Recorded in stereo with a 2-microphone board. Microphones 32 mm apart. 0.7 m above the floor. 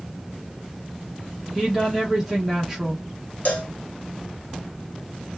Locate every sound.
1.6 s a woman speaking: 10° right (ahead or behind), 1.3 m
3.5 s a cowbell: 60° left (ahead or behind), 0.6 m